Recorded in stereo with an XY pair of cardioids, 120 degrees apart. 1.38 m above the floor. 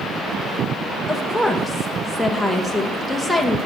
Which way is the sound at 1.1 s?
Straight ahead.